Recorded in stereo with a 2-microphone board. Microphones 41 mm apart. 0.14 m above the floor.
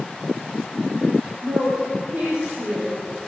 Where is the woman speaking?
65° right (ahead or behind), 4 m.